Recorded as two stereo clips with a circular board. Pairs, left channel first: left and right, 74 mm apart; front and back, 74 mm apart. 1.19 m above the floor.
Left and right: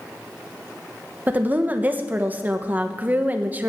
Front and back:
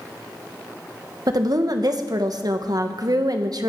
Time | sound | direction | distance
1.3 | a woman speaking | 155° right | 1.1 m